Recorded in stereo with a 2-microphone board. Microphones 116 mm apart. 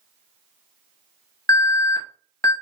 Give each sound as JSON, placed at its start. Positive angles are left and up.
{"t": 1.5, "sound": "an alarm", "side_deg": 30, "distance_m": 0.7}